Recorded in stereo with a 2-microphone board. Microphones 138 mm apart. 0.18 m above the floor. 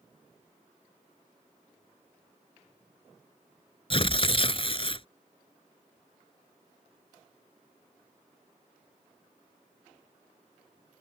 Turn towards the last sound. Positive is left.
turn(degrees=40)  # may be behind; listen again after turning